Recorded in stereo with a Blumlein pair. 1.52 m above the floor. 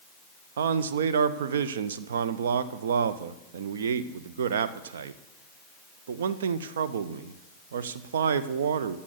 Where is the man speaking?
60° right, 0.7 m.